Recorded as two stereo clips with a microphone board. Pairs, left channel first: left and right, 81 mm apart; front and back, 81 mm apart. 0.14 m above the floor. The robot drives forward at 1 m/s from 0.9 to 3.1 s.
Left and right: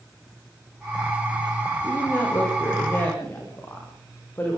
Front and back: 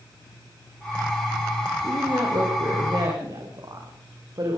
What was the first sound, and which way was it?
A woman speaking, 145° left.